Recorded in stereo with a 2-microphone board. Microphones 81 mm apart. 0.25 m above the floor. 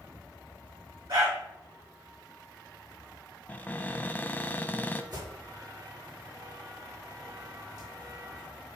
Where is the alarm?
55° right (ahead or behind), 4 m.